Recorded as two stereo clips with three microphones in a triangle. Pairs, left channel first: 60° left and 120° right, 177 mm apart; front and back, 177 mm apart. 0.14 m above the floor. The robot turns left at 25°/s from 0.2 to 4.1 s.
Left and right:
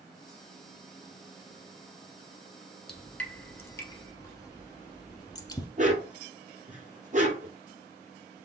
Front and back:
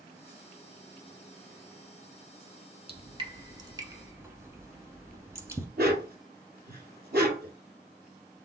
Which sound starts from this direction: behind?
A dog barking, at 5.8 s.